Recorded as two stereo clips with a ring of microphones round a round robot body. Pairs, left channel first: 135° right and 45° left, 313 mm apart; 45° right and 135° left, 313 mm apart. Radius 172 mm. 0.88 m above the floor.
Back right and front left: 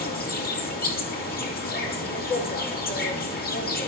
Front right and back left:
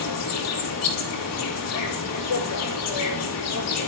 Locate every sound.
0.0 s an insect: 75° right, 4 m